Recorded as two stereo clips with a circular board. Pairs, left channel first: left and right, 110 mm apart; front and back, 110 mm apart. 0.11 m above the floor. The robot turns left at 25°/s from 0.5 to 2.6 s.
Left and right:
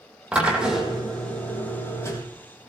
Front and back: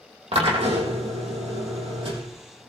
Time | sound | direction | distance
0.3 | a drill | 170° right | 3.5 m